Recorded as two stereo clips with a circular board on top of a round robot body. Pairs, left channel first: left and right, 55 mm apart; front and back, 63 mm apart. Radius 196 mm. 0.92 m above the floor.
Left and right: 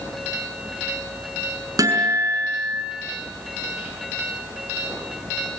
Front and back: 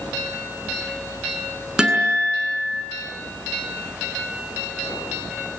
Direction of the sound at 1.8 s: 100° right.